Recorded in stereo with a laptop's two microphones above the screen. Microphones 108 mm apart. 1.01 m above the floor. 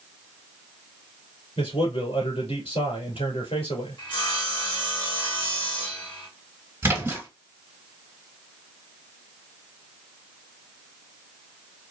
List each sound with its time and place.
1.6 s a man speaking: 70° left (ahead or behind), 2.5 m
4.0 s sawing: 55° left (ahead or behind), 1.7 m
6.8 s a splash: 20° right (ahead or behind), 2 m